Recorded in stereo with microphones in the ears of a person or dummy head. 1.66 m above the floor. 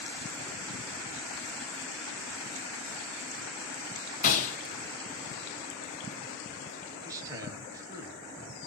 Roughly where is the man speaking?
Centre.